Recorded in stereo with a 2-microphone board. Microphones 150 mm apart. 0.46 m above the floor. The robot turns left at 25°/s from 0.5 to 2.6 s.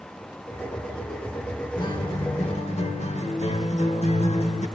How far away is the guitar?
About 1.0 m.